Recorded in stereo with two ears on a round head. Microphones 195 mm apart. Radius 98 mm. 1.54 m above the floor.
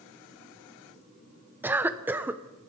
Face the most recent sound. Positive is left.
turn(degrees=-10)  # may be behind; listen again after turning